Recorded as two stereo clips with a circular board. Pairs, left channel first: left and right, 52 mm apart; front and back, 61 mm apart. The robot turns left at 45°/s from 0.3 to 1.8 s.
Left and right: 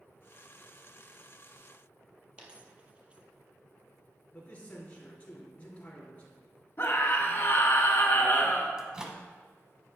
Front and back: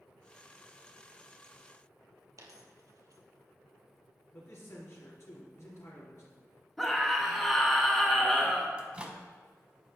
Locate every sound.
2.4 s a dropped coin: 155° right, 1.3 m
4.3 s a man speaking: 30° left, 3.5 m
6.8 s a scream: 90° left, 2.5 m
8.8 s a microwave: 145° right, 0.9 m